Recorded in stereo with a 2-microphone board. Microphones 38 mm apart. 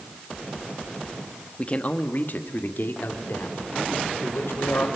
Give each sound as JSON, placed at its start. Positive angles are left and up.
{"t": 1.6, "sound": "a man speaking", "side_deg": 30, "distance_m": 1.3}